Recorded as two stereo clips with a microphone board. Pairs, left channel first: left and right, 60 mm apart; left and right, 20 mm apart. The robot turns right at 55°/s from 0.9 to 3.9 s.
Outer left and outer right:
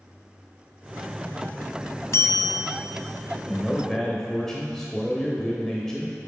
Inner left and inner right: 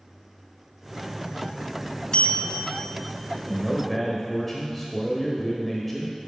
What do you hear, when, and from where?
2.1 s a bell: 55° left, 0.7 m; by 2.8 s 90° left, 0.7 m
3.5 s a man speaking: 20° left (ahead or behind), 1.0 m; by 6.2 s 10° left (ahead or behind), 1.0 m